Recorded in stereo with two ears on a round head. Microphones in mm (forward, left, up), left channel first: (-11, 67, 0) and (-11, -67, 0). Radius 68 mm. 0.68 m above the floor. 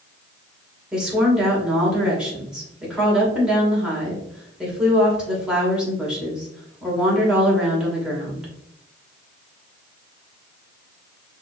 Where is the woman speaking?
5° right (ahead or behind), 2 m.